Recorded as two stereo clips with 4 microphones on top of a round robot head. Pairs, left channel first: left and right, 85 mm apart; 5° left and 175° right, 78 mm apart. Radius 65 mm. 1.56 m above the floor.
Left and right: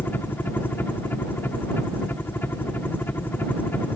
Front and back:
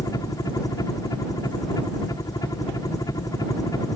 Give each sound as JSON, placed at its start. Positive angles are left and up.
{"t": 0.0, "sound": "a helicopter", "azimuth_deg": 30}